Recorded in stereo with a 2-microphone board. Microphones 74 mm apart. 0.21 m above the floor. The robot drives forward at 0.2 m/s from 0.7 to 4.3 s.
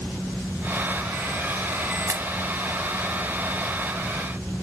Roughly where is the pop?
Right.